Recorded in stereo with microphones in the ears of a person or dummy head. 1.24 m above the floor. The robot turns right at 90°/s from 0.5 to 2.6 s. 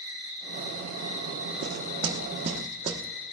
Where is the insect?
100° right, 1.4 m; by 3.3 s 90° left, 1.4 m.